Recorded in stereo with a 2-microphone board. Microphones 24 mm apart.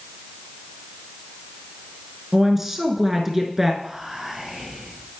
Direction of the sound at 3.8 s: 20° right (ahead or behind).